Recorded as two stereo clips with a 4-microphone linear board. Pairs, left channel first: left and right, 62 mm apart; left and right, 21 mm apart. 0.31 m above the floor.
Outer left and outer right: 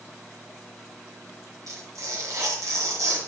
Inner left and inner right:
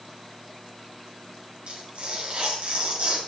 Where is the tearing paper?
60° right (ahead or behind), 1.9 m.